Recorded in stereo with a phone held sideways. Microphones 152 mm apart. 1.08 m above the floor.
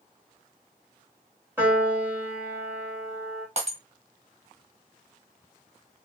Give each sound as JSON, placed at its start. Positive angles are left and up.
{"t": 1.6, "sound": "a piano", "side_deg": -15, "distance_m": 2.5}
{"t": 3.6, "sound": "breaking glass", "side_deg": -50, "distance_m": 1.6}